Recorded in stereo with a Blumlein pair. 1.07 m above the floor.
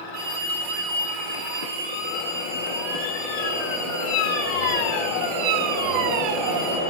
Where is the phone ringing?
55° right, 3 m.